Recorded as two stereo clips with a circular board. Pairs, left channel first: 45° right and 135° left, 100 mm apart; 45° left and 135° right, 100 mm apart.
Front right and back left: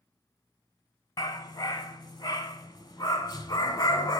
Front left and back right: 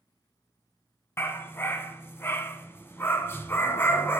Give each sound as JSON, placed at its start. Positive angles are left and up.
{"t": 1.2, "sound": "a dog barking", "azimuth_deg": -15, "distance_m": 0.6}